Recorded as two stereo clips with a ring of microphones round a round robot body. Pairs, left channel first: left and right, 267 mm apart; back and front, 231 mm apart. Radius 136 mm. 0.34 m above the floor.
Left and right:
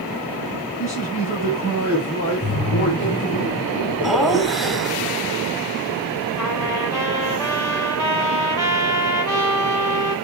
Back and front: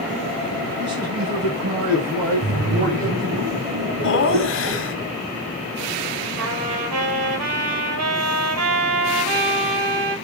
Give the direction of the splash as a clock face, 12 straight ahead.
11 o'clock.